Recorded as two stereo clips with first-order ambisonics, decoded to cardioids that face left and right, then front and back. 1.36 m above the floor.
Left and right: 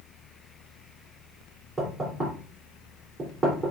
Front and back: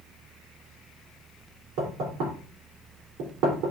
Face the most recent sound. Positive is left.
turn(degrees=-170)